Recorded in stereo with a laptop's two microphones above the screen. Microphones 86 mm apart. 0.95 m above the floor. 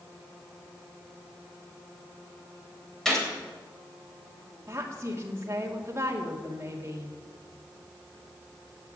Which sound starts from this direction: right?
A woman speaking, at 4.7 s.